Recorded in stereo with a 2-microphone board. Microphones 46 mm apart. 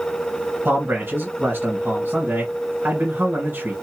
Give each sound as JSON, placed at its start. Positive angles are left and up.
{"t": 0.7, "sound": "a man speaking", "side_deg": -45, "distance_m": 2.5}